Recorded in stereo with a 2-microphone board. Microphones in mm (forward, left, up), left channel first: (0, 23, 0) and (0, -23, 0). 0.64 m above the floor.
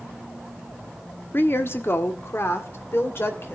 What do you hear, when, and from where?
1.3 s a woman speaking: 45° left (ahead or behind), 1.2 m; by 3.5 s 55° left (ahead or behind), 2.5 m